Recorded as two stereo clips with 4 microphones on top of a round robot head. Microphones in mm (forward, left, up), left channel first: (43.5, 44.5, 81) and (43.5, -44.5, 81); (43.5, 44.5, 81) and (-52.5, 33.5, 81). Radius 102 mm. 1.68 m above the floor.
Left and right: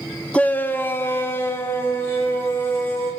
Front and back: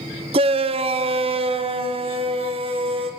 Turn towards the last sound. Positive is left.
turn(degrees=160)